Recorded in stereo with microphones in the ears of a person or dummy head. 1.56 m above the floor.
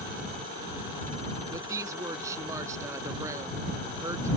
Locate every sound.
1.5 s a woman speaking: 20° right (ahead or behind)